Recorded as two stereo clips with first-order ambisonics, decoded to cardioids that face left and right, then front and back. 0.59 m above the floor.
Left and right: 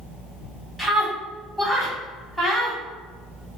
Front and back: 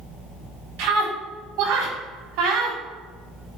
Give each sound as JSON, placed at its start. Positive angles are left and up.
{"t": 0.8, "sound": "a scream", "azimuth_deg": 180, "distance_m": 3.5}